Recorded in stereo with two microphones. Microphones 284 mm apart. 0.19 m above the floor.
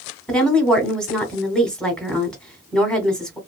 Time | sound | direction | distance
0.3 | a woman speaking | 5° left (ahead or behind) | 1.2 m